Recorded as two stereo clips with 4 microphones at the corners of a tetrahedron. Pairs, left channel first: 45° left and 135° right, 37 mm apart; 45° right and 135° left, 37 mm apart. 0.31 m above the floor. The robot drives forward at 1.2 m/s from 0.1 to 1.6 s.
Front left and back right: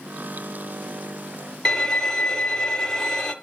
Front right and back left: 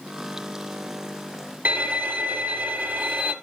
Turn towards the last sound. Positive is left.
turn(degrees=120)